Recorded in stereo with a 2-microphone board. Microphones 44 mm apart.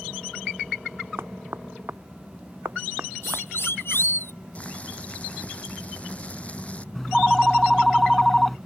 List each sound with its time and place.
1.2 s knocking: 60° right (ahead or behind)
3.2 s a siren: 60° left (ahead or behind); by 4.3 s 65° left (ahead or behind)
4.5 s boiling: 30° left (ahead or behind)
7.0 s a phone ringing: 5° left (ahead or behind)